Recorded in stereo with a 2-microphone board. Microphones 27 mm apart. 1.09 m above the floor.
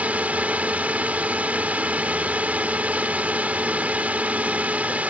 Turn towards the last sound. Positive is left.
turn(degrees=-65)  # may be behind; listen again after turning